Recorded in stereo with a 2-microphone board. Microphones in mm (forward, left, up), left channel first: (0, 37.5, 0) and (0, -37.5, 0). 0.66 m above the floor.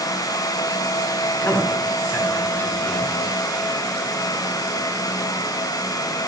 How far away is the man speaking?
About 5.5 m.